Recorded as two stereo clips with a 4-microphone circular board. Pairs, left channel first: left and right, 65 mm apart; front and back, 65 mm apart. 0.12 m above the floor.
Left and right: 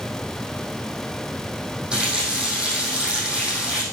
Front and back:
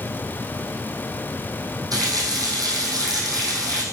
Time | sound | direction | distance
1.9 | a running tap | 165° right | 4 m